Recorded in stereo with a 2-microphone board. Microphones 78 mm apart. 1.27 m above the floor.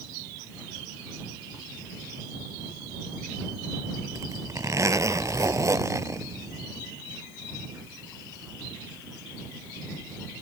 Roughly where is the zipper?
Right.